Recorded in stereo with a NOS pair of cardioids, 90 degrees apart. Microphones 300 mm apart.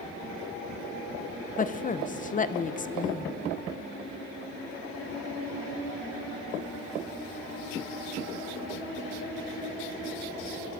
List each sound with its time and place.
1.6 s a woman speaking: 25° left, 0.8 m